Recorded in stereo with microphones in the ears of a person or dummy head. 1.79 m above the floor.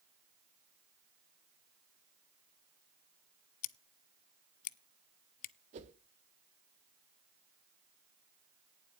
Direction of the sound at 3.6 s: 45° left (ahead or behind).